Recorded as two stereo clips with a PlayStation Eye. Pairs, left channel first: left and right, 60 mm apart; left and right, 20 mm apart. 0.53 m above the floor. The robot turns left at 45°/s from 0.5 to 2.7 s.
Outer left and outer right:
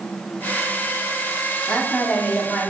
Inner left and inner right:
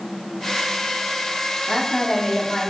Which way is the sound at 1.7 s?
15° left (ahead or behind).